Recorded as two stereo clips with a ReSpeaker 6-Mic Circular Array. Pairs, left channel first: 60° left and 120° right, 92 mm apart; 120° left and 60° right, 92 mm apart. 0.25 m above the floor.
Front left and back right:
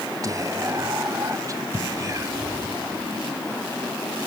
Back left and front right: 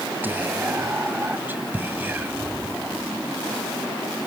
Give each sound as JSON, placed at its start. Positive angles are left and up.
{"t": 0.2, "sound": "whispering", "azimuth_deg": -115, "distance_m": 1.5}